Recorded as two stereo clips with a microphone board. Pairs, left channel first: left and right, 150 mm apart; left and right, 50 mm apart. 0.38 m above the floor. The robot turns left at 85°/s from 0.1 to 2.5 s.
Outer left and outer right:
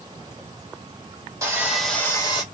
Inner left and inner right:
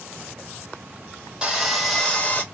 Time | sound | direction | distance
1.4 | sawing | 145° right | 1.5 m